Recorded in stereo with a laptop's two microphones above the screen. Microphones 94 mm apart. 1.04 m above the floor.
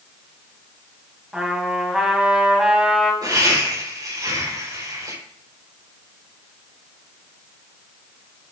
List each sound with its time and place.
1.3 s a trumpet: 5° right (ahead or behind), 2.0 m
3.2 s laughter: 45° right (ahead or behind), 4.5 m